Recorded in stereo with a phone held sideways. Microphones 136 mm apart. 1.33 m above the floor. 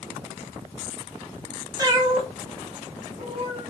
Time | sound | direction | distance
1.8 | a cat meowing | 25° right (ahead or behind) | 0.8 m